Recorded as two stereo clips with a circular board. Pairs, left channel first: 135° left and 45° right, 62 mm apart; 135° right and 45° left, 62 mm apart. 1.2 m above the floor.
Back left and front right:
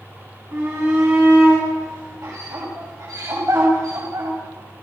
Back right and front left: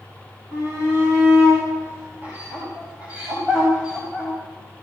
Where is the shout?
10° right, 8.5 m; by 4.3 s 30° right, 7 m.